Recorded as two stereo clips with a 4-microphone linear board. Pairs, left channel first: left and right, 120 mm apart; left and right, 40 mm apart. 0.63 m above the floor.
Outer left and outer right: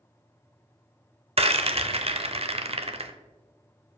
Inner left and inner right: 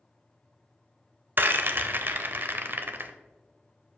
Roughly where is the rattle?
Right.